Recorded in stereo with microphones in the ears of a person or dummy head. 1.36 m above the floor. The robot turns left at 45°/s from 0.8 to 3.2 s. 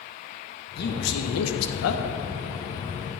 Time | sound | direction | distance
0.8 | a man speaking | 130° left | 1.2 m